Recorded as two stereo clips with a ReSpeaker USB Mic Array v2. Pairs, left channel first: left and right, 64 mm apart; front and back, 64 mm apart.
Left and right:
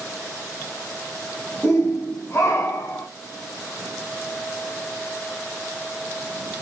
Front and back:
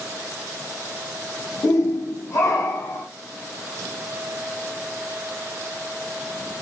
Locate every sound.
1.6 s a shout: 15° left, 2 m; by 3.1 s 35° left, 2 m